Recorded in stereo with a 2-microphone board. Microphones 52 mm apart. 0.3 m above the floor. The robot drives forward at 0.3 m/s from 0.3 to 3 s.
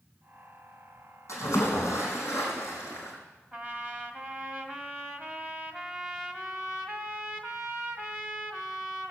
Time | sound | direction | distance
1.3 | a splash | 65° left (ahead or behind) | 4.5 m
3.5 | a trumpet | 15° right (ahead or behind) | 1.8 m